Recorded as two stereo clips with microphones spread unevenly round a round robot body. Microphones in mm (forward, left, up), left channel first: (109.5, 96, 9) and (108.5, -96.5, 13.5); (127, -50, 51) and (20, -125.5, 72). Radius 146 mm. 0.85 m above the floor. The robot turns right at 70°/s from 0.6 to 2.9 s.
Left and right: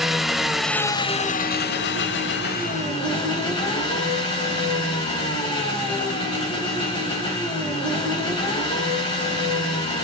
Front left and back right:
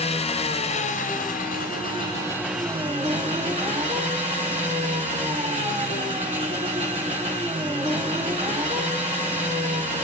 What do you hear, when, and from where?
0.0 s an engine running: straight ahead, 1.0 m; by 10.1 s 160° left, 1.0 m